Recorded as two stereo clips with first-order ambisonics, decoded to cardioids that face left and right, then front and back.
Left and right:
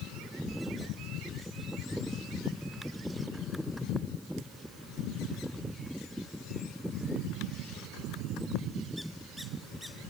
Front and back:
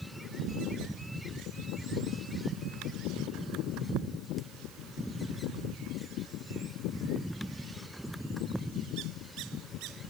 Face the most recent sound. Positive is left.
turn(degrees=175)